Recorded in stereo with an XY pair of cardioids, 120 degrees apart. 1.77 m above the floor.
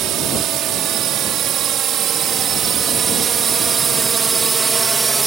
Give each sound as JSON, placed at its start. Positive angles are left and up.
{"t": 0.0, "sound": "a drone", "azimuth_deg": -65}